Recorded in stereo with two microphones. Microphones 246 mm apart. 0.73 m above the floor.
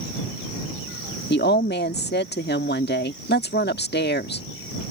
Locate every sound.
1.3 s a woman speaking: 45° left (ahead or behind)